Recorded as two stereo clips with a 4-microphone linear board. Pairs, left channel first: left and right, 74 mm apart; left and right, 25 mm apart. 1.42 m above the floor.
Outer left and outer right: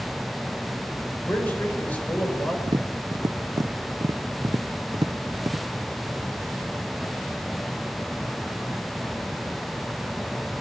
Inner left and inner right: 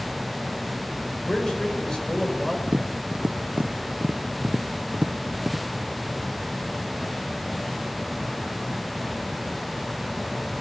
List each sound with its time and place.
1.3 s a man speaking: 25° left (ahead or behind), 6.5 m; by 2.6 s 20° left (ahead or behind), 7 m
2.7 s tapping: 65° right (ahead or behind), 0.7 m